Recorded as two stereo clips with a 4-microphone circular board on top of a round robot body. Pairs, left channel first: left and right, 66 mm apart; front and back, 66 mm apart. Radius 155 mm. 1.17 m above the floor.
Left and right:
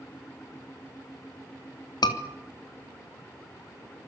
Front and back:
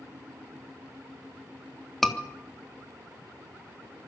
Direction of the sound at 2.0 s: 85° left.